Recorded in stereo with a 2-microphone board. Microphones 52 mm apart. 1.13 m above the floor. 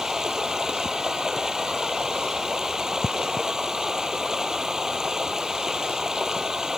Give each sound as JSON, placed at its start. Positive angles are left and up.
{"t": 0.0, "sound": "running water", "side_deg": -10}